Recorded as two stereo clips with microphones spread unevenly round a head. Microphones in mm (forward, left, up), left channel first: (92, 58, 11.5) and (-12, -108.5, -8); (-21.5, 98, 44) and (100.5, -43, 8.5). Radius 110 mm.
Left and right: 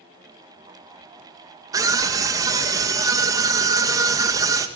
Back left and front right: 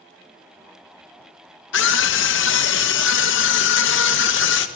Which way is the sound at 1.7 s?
165° left.